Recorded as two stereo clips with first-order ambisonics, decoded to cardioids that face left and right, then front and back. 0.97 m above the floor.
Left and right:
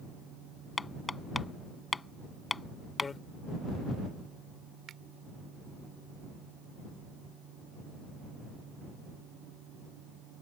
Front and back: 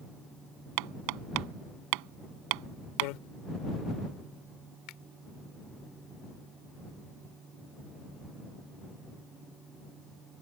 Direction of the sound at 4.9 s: 35° right.